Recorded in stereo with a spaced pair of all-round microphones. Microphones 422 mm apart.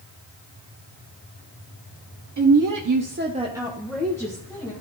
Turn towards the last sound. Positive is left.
turn(degrees=10)  # may be behind; listen again after turning